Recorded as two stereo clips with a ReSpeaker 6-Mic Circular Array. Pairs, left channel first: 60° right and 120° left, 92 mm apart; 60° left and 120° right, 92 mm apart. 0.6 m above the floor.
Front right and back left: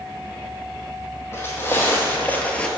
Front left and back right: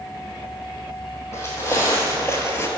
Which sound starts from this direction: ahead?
Footsteps, at 1.3 s.